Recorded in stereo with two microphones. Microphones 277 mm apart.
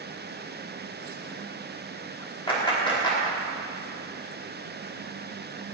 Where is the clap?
15° left (ahead or behind), 4 m.